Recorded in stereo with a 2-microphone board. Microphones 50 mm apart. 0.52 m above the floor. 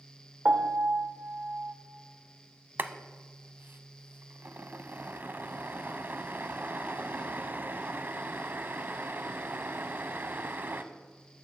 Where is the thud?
No thud in this recording.